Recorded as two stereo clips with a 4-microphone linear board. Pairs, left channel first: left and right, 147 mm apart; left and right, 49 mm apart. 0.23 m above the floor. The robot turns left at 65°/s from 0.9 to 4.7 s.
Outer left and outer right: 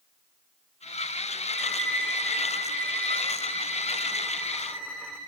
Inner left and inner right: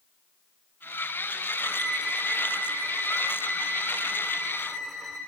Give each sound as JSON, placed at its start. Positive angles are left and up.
{"t": 1.5, "sound": "a violin", "azimuth_deg": 20, "distance_m": 4.5}